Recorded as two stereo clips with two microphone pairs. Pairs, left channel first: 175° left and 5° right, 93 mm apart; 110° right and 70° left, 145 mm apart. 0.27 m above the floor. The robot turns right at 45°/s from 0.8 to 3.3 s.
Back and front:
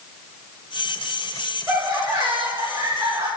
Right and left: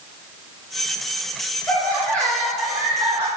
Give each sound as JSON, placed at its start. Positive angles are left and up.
{"t": 1.7, "sound": "laughter", "azimuth_deg": -60, "distance_m": 1.4}